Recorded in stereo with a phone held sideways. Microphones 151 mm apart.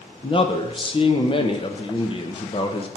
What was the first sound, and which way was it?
A man speaking, 35° left (ahead or behind).